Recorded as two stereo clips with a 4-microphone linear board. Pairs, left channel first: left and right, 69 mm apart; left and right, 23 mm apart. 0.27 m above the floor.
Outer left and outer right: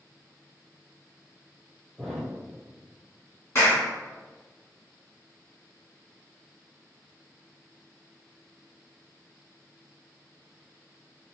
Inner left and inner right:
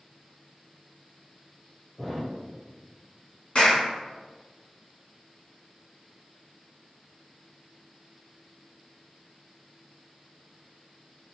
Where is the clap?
40° left (ahead or behind), 2.0 m.